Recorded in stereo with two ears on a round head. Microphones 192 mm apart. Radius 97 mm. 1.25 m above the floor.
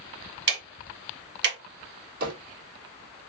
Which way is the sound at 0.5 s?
55° right (ahead or behind).